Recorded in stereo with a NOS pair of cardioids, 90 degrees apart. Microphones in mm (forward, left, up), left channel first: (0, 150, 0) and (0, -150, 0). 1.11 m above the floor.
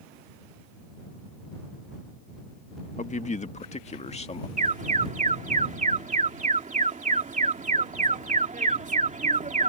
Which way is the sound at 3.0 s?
25° left.